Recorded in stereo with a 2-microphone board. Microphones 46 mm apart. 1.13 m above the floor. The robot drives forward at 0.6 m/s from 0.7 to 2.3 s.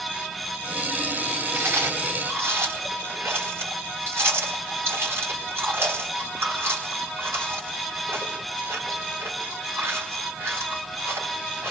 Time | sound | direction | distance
1.5 | chewing | 75° right (ahead or behind) | 3.5 m